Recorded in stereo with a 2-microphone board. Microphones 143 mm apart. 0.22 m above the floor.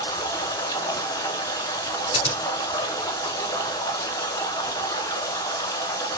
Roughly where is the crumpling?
I don't hear crumpling.